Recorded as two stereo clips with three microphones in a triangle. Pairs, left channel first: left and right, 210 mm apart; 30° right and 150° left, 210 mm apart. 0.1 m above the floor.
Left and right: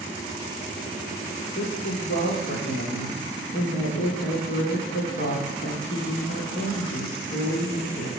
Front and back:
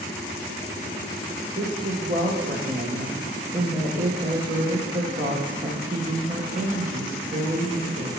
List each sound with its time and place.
1.6 s a woman speaking: 105° left, 2.5 m